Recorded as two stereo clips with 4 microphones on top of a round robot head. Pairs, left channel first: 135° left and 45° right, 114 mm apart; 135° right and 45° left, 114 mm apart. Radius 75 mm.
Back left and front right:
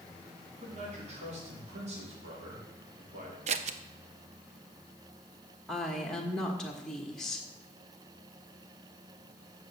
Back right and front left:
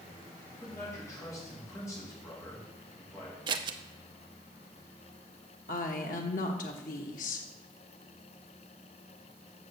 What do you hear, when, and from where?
0.6 s a man speaking: 70° right, 4 m
3.5 s scissors: 10° right, 0.6 m
5.7 s a woman speaking: 140° right, 1.2 m